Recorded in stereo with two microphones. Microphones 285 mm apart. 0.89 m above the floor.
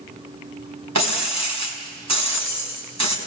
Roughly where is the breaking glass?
Right.